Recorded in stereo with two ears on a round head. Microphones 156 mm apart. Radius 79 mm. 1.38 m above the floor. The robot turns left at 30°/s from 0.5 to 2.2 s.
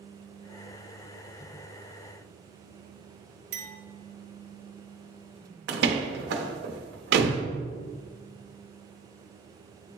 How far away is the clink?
About 1.1 m.